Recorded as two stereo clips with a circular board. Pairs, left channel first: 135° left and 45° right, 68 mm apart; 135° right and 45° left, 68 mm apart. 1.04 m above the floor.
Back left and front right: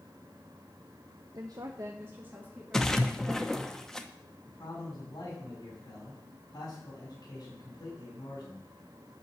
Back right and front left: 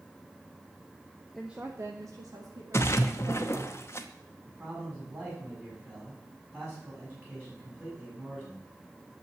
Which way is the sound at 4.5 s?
105° left.